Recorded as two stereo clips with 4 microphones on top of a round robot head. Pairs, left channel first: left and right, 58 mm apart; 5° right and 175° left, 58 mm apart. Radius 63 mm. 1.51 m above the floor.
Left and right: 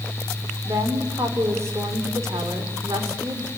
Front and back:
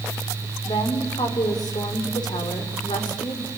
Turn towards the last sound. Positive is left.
turn(degrees=-35)